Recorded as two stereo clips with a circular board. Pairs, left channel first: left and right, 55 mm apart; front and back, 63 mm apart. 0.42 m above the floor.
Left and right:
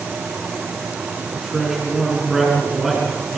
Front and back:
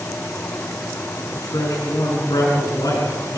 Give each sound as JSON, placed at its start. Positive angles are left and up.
{"t": 1.4, "sound": "a man speaking", "azimuth_deg": -5, "distance_m": 5.5}